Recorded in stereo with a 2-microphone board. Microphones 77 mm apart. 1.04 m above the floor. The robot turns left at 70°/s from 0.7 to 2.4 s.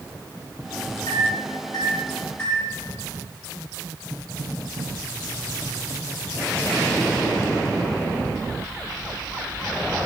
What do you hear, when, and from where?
1.1 s a microwave: 70° left (ahead or behind), 3.5 m; by 2.7 s 15° left (ahead or behind), 3.5 m